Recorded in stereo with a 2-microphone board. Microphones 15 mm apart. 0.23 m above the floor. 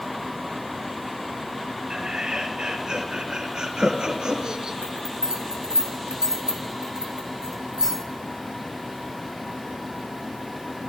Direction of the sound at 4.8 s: 50° right (ahead or behind).